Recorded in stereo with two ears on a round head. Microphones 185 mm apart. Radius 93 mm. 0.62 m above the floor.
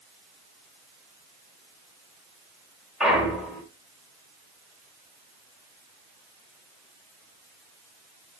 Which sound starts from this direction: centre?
A clunk, at 3.0 s.